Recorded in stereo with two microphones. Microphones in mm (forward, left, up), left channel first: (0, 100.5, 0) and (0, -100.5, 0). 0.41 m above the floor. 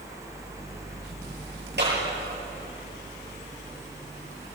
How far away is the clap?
About 9 m.